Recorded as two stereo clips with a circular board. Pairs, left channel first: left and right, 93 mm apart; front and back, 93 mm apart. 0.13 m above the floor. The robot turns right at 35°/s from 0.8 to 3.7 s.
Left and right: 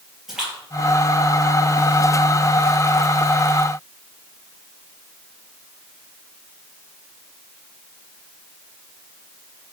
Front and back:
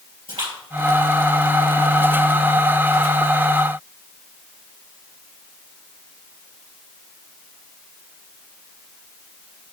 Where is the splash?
175° right, 3 m; by 2.0 s 130° right, 3 m.